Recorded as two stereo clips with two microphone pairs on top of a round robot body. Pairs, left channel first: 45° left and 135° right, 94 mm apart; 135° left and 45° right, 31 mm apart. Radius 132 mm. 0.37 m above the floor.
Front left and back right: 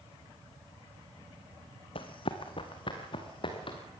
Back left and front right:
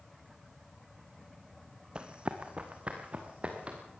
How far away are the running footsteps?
About 1.0 m.